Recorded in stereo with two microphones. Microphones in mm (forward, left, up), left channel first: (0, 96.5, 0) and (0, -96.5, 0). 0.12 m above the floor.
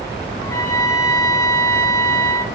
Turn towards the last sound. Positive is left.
turn(degrees=15)  # may be behind; listen again after turning